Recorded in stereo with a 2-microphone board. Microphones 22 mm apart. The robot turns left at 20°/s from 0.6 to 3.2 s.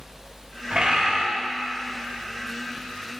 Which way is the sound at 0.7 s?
60° right (ahead or behind).